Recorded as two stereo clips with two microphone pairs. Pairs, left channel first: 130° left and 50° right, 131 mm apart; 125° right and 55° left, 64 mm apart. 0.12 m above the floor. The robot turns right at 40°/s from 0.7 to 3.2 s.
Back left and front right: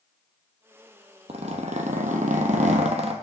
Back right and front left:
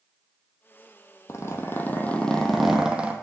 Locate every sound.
1.3 s a zipper: 85° right, 0.9 m; by 3.1 s 15° right, 0.9 m